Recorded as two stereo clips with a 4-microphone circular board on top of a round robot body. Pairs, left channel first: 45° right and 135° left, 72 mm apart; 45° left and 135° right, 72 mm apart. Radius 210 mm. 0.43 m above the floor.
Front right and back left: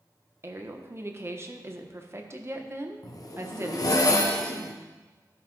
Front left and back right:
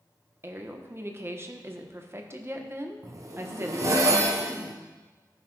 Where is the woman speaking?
Straight behind, 1.3 m.